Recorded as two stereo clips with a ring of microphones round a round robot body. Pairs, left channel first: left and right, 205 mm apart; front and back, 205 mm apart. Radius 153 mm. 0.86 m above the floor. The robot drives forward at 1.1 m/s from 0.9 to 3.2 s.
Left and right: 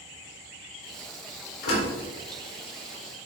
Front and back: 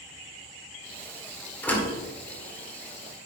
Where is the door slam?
80° left, 2.5 m; by 3.3 s 115° left, 3 m.